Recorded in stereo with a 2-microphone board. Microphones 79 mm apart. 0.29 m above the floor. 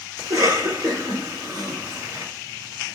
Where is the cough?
50° right (ahead or behind), 2.5 m.